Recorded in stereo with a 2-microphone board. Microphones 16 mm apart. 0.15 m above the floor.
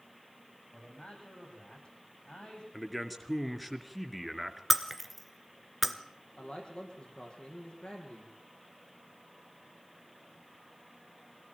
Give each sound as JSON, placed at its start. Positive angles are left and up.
{"t": 0.7, "sound": "a man speaking", "side_deg": 70, "distance_m": 8.5}
{"t": 2.7, "sound": "a man speaking", "side_deg": -5, "distance_m": 2.0}
{"t": 4.7, "sound": "breaking glass", "side_deg": 0, "distance_m": 1.4}
{"t": 6.4, "sound": "a man speaking", "side_deg": 80, "distance_m": 6.0}